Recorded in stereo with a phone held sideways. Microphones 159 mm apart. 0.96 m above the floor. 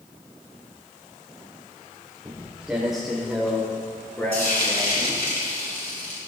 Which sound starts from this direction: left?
Frying, at 4.3 s.